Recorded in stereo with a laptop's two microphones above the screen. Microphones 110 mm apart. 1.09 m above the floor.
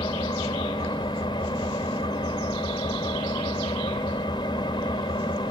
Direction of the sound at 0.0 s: 45° left (ahead or behind).